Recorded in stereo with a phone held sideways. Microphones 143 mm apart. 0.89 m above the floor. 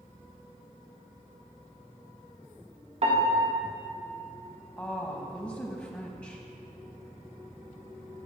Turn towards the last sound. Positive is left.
turn(degrees=15)  # may be behind; listen again after turning